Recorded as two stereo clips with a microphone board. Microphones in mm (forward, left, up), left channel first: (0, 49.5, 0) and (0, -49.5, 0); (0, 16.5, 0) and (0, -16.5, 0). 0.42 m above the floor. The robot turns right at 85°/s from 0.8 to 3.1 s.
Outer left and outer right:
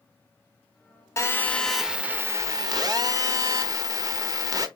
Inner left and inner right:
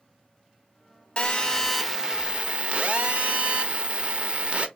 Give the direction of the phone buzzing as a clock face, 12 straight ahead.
8 o'clock.